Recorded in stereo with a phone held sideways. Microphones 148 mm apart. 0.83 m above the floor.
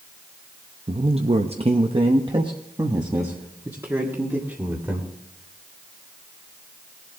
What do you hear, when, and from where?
0.9 s a man speaking: 40° right (ahead or behind), 0.8 m; by 5.1 s 15° right (ahead or behind), 2.5 m